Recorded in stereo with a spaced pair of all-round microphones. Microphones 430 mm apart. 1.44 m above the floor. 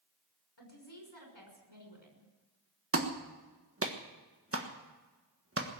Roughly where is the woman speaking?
Left.